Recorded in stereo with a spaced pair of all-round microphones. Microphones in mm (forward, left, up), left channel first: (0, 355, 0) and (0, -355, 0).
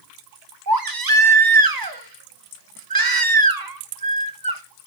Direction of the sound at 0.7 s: 30° right (ahead or behind).